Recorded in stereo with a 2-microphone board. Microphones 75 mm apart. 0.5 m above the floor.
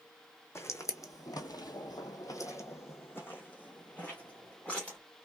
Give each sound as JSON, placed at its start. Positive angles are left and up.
{"t": 0.6, "sound": "footsteps", "side_deg": 35, "distance_m": 1.1}